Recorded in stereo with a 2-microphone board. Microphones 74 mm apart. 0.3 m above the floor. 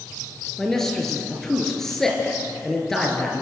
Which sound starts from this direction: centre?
A man speaking, at 0.6 s.